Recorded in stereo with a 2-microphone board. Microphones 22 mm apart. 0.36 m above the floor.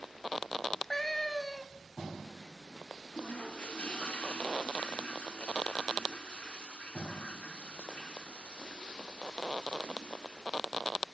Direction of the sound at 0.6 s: 10° left (ahead or behind).